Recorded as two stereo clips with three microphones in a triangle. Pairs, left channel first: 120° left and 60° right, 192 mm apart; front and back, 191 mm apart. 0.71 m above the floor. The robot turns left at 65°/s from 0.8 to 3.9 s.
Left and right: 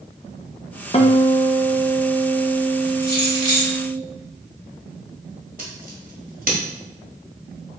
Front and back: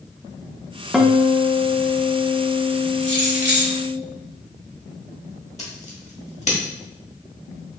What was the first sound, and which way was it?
A guitar, 95° left.